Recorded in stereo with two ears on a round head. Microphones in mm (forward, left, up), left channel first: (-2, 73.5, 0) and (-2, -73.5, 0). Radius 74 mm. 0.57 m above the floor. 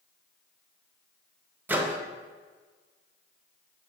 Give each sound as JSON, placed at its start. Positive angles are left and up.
{"t": 1.7, "sound": "a microwave", "side_deg": -10, "distance_m": 0.6}